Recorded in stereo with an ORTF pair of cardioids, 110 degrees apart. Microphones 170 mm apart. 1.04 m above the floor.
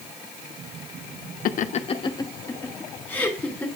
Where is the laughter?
65° left, 0.7 m; by 3.6 s 10° left, 3 m.